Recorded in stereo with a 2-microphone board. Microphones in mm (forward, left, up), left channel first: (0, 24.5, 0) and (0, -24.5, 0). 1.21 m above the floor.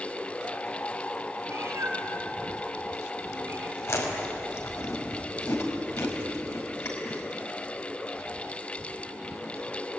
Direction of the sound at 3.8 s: 70° left (ahead or behind).